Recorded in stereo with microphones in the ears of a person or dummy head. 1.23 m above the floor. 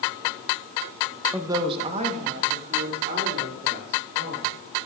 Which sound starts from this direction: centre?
A woman speaking, at 1.3 s.